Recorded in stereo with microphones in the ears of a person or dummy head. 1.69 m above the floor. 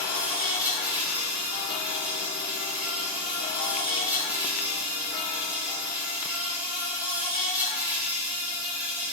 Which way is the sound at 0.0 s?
10° right (ahead or behind).